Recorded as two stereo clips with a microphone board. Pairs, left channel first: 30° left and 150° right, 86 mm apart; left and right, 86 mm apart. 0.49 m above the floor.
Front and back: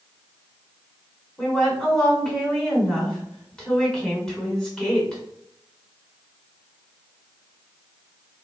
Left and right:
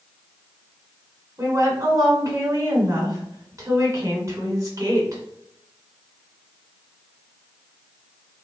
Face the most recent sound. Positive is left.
turn(degrees=-50)